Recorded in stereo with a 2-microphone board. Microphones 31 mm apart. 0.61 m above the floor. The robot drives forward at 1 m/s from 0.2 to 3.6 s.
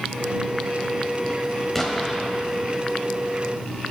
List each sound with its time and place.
1.8 s an explosion: 10° left (ahead or behind), 1.0 m; by 2.2 s 5° left (ahead or behind), 1.5 m